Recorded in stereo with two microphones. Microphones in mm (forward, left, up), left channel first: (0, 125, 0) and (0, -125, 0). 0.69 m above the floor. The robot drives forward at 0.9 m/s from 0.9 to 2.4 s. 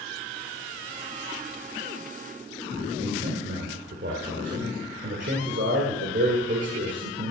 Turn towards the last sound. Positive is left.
turn(degrees=-50)  # may be behind; listen again after turning